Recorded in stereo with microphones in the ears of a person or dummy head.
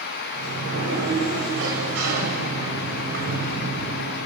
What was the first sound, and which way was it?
A sliding door, 75° right (ahead or behind).